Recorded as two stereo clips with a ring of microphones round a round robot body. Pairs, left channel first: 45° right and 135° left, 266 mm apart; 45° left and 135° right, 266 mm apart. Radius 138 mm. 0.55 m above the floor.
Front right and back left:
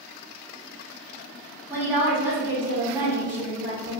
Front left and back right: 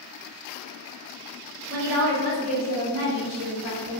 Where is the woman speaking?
145° right, 1.4 m.